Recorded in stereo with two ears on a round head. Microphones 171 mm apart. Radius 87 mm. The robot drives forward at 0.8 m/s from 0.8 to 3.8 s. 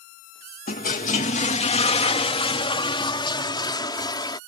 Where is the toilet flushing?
45° left (ahead or behind); by 4.4 s 25° left (ahead or behind).